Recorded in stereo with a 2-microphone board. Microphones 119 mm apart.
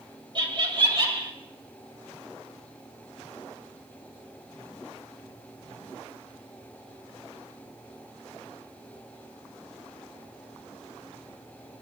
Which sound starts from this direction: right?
Laughter, at 0.3 s.